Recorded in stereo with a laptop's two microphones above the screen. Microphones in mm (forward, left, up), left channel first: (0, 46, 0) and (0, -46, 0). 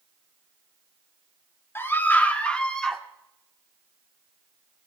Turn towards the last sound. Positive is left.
turn(degrees=5)  # may be behind; listen again after turning